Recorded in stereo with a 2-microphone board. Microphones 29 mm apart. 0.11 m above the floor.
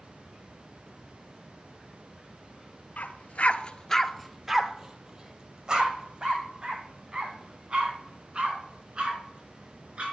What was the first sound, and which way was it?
A dog barking, 65° left (ahead or behind).